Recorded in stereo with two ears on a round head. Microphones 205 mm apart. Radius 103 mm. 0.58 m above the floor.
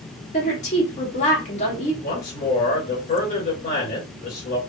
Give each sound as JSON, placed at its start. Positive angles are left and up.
{"t": 0.3, "sound": "a woman speaking", "side_deg": 35, "distance_m": 1.4}
{"t": 2.0, "sound": "a man speaking", "side_deg": 40, "distance_m": 2.0}